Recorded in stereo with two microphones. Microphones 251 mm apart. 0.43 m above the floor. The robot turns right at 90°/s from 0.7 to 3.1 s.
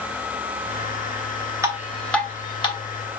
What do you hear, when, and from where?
1.6 s dripping: 10° right (ahead or behind), 1.3 m; by 2.8 s 20° left (ahead or behind), 1.3 m